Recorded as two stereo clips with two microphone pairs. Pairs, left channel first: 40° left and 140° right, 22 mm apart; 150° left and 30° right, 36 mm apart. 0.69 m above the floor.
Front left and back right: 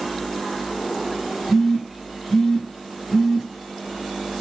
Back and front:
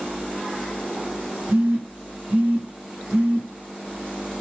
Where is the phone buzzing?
25° right, 1.7 m.